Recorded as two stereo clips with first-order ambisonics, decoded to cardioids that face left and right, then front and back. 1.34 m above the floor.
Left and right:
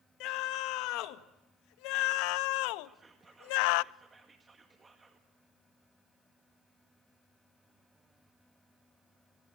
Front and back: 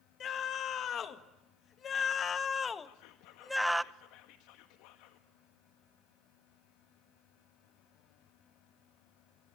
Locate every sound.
0.2 s a scream: 55° left, 2.5 m; by 3.8 s 95° left, 0.6 m
2.8 s whispering: 15° right, 1.5 m